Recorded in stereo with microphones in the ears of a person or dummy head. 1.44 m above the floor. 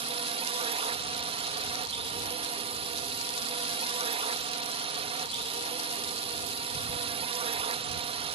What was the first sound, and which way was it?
A drone, 30° right (ahead or behind).